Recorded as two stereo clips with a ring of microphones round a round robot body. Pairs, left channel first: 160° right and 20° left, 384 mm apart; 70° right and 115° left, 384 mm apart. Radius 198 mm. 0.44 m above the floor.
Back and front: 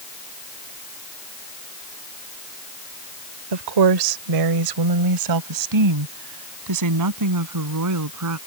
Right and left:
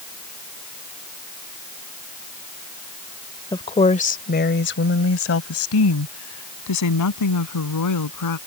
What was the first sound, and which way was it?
A woman speaking, 10° left.